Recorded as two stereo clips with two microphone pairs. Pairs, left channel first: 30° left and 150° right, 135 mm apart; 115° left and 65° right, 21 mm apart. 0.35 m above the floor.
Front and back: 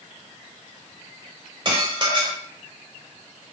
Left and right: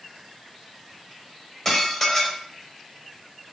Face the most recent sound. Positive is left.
turn(degrees=170)